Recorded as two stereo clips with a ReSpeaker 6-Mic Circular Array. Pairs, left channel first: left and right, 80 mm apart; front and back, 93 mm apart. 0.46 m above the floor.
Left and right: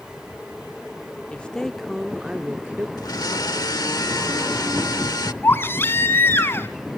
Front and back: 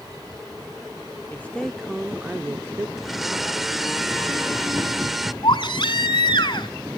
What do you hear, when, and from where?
1.3 s a woman speaking: 35° left, 0.7 m; by 2.9 s 140° right, 0.9 m
3.0 s a blender: 95° left, 0.9 m
5.4 s a baby crying: 30° left, 1.5 m